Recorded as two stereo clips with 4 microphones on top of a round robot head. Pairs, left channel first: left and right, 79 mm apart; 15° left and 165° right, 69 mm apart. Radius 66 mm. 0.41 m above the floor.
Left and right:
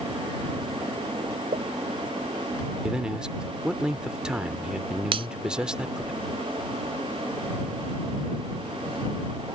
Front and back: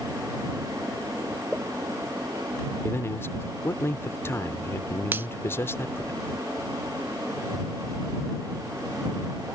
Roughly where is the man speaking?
Ahead.